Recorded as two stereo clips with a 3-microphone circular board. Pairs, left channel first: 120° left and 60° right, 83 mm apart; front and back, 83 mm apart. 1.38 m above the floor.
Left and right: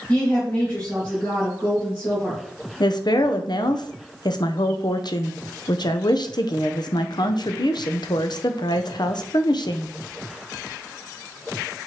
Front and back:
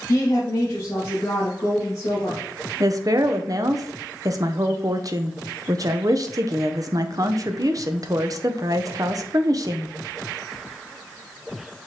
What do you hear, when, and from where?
0.1 s a woman speaking: 50° left, 1.5 m
2.8 s a woman speaking: 140° left, 0.5 m